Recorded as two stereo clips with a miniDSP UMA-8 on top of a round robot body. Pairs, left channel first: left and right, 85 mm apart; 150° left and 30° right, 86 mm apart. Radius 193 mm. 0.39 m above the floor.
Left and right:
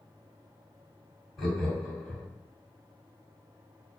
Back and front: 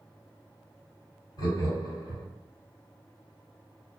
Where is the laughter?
175° left, 2.0 m.